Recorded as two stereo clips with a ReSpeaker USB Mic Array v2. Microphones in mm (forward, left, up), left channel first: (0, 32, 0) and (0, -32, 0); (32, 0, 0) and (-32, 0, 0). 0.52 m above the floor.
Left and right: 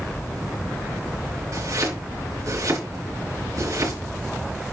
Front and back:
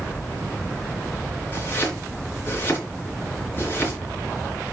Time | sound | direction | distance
1.5 | chopping | 55° right | 5 m